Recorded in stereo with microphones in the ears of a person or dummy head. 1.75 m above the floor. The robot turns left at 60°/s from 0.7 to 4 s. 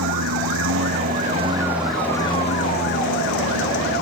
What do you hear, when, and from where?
0.0 s a lawn mower: 105° right; by 4.0 s 55° left